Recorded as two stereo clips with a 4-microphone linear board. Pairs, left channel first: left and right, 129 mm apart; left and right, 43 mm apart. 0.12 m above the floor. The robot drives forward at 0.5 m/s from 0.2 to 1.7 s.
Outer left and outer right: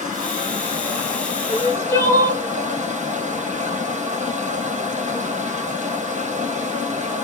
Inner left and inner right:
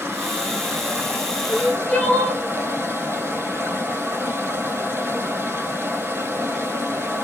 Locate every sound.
0.0 s running water: 70° right (ahead or behind), 2.5 m; by 7.2 s 65° right (ahead or behind), 2.5 m
1.5 s crying: 25° left (ahead or behind), 1.6 m